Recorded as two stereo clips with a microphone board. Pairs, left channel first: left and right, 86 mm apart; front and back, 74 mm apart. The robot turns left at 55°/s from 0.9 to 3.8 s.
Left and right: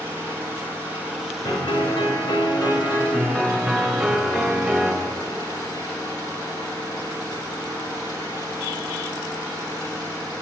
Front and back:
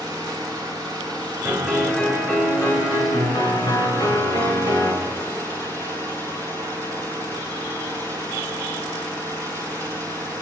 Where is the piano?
120° left, 3 m; by 4.9 s 10° right, 3 m.